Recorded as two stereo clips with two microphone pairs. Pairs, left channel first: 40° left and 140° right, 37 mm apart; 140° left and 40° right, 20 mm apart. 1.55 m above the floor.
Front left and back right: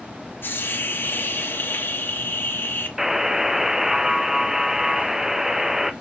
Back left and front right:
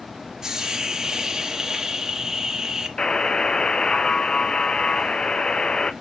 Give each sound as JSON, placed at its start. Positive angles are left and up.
{"t": 0.4, "sound": "a hiss", "azimuth_deg": 25, "distance_m": 1.2}
{"t": 3.0, "sound": "a buzzer", "azimuth_deg": 150, "distance_m": 0.6}